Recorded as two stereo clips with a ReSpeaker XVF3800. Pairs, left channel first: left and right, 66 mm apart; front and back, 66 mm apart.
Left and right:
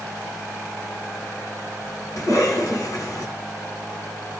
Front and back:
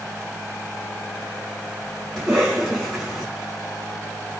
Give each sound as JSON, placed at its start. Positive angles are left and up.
{"t": 2.2, "sound": "a cough", "azimuth_deg": 85, "distance_m": 2.0}